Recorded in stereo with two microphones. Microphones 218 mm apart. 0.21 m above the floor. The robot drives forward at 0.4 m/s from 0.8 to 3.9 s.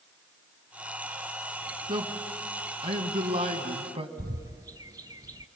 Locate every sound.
1.9 s a man speaking: 20° right (ahead or behind), 2 m; by 4.1 s 25° right (ahead or behind), 1.8 m
4.2 s a bird: 15° right (ahead or behind), 0.7 m